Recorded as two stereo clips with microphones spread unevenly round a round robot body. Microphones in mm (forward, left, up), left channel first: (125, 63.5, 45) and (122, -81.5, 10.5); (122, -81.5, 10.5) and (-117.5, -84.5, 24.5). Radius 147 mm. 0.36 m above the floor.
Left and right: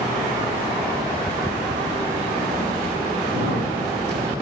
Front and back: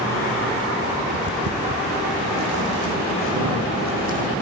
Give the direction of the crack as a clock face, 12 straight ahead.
5 o'clock.